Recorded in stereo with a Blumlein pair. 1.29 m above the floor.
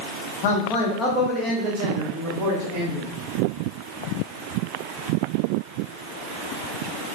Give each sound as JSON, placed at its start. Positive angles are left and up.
{"t": 0.4, "sound": "a man speaking", "azimuth_deg": 45, "distance_m": 0.8}